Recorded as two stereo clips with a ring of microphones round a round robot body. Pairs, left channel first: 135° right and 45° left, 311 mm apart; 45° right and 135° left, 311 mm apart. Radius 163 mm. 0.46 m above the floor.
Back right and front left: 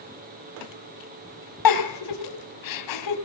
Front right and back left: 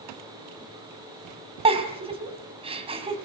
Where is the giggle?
155° right, 2.5 m.